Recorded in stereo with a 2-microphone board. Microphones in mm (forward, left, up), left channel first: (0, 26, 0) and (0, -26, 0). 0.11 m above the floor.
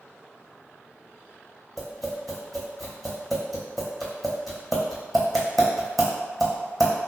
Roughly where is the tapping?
Centre.